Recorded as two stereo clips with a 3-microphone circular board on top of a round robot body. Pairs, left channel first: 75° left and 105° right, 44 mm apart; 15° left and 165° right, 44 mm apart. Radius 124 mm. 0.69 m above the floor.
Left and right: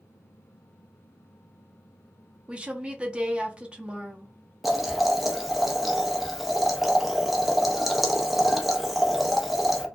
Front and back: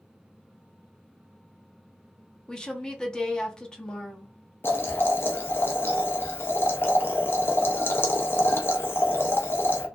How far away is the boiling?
About 0.7 m.